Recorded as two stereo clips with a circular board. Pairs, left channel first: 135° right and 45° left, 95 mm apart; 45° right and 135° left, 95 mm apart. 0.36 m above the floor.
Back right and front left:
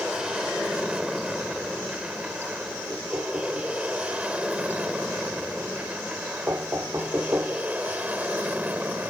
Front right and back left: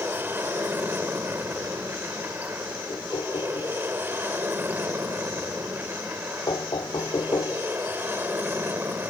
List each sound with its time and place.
0.0 s an aircraft: 115° left; by 9.1 s 100° left
2.9 s knocking: 15° right